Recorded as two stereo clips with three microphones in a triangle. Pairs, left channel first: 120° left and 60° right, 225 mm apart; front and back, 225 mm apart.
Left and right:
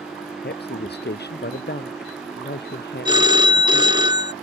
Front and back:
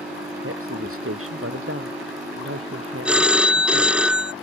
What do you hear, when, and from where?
0.4 s a woman speaking: 165° left
3.0 s a phone ringing: 100° right